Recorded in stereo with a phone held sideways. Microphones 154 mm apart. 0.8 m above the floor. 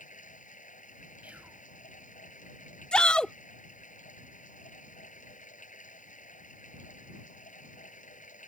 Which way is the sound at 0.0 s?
55° left (ahead or behind).